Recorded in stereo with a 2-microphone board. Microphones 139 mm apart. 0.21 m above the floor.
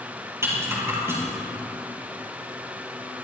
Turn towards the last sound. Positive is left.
turn(degrees=-20)  # may be behind; listen again after turning